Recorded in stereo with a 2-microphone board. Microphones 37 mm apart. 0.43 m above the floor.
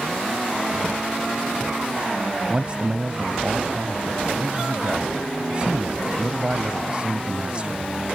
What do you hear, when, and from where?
2.5 s a man speaking: 30° right (ahead or behind)